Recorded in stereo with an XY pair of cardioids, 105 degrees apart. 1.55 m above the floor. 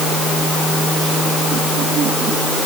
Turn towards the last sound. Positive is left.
No sound to turn to.